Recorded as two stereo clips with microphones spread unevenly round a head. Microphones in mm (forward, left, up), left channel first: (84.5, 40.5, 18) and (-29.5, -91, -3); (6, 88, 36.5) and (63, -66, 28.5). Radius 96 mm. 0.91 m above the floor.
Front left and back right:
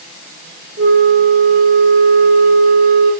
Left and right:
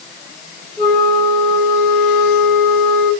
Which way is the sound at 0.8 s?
170° right.